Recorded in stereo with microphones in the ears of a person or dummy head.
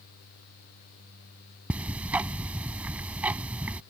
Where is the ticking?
15° right (ahead or behind).